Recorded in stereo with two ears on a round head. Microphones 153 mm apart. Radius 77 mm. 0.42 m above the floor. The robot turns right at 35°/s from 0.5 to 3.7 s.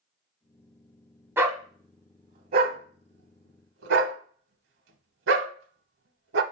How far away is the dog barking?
About 0.9 m.